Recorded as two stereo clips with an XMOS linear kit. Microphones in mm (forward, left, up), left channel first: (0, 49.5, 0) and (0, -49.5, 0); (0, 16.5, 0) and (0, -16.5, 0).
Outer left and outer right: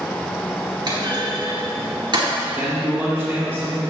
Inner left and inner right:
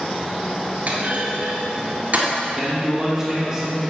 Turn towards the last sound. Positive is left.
turn(degrees=-5)  # may be behind; listen again after turning